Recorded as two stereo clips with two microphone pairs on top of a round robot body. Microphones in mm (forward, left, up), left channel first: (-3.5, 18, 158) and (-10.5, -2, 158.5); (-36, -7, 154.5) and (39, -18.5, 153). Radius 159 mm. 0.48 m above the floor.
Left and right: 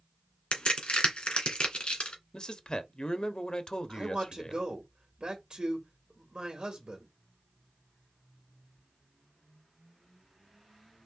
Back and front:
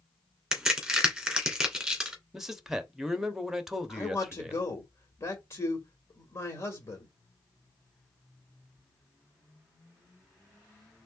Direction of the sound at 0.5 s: 70° left.